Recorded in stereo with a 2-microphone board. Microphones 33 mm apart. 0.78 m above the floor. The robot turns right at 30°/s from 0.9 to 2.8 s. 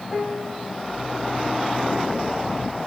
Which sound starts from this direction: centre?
A piano, at 0.1 s.